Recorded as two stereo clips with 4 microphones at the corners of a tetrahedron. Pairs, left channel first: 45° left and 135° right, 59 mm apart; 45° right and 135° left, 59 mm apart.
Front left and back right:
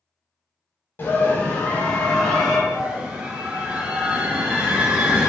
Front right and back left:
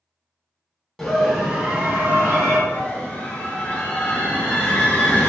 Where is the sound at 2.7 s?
85° right, 1.2 m.